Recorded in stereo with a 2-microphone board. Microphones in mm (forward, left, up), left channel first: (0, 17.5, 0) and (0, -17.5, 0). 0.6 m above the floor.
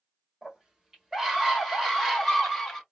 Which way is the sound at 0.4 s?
20° right (ahead or behind).